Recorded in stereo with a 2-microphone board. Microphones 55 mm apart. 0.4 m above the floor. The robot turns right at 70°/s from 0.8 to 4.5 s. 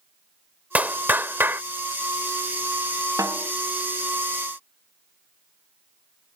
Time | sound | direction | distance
0.8 | a clap | 130° right | ?
3.2 | a snare drum | 90° right | ?